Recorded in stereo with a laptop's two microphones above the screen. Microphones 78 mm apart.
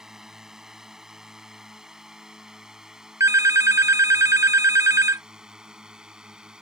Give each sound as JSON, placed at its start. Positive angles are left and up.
{"t": 0.0, "sound": "a drone", "side_deg": -5}
{"t": 3.2, "sound": "a phone ringing", "side_deg": -40}